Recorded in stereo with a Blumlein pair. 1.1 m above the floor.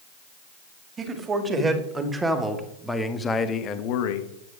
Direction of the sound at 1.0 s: 20° right.